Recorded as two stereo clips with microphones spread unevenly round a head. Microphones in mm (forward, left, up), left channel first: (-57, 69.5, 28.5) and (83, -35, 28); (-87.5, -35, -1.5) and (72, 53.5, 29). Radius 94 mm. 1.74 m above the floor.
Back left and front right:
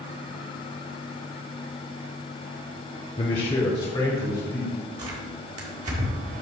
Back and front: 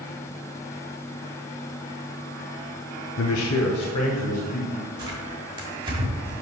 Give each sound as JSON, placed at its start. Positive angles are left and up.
{"t": 3.2, "sound": "a man speaking", "azimuth_deg": -160, "distance_m": 0.7}
{"t": 5.0, "sound": "tearing paper", "azimuth_deg": -15, "distance_m": 1.8}